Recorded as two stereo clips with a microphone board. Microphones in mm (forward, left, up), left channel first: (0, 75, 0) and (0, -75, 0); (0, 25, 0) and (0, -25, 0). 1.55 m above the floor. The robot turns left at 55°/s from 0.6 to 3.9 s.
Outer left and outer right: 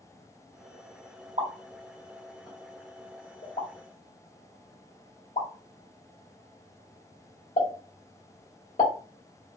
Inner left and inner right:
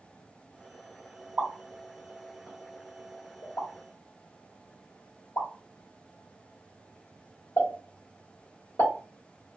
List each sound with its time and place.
1.4 s a pop: 50° right (ahead or behind), 1.8 m; by 8.9 s 60° left (ahead or behind), 1.8 m